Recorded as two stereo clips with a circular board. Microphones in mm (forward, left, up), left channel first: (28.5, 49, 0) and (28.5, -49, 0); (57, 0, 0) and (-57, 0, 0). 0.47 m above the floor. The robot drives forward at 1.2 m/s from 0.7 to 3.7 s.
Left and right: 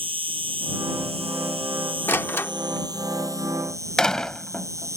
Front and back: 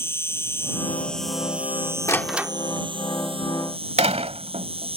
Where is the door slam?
40° left; by 5.0 s 175° left.